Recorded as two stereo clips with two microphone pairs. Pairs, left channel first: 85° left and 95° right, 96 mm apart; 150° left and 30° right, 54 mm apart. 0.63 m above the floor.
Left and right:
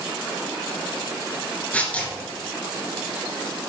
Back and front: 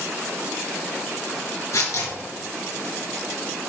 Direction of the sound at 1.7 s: 155° left.